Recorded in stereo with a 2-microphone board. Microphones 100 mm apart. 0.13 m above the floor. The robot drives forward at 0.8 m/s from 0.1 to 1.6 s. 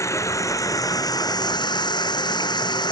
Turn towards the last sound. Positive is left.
turn(degrees=45)  # may be behind; listen again after turning